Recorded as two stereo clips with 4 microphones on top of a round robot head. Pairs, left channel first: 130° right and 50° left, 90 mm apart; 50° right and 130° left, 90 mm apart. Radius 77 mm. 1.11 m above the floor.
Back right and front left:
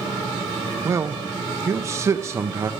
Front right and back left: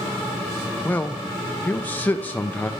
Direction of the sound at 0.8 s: 10° left.